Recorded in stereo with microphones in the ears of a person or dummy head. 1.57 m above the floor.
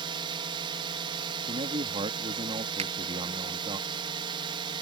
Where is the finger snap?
35° right (ahead or behind).